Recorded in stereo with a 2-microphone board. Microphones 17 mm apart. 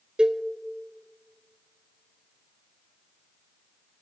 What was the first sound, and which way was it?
A cowbell, 65° right (ahead or behind).